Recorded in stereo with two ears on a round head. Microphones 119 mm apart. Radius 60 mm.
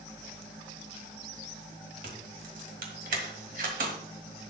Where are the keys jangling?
65° right (ahead or behind), 1.8 m.